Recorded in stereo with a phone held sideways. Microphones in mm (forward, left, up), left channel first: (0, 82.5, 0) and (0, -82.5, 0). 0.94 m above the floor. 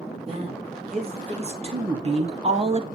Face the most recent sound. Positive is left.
turn(degrees=-35)  # may be behind; listen again after turning